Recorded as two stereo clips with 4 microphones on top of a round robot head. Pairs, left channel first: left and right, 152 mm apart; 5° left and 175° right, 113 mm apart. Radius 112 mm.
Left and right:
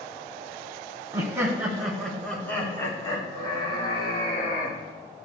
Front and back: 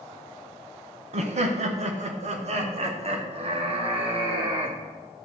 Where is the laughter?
160° right, 1.5 m; by 4.8 s 145° left, 3 m.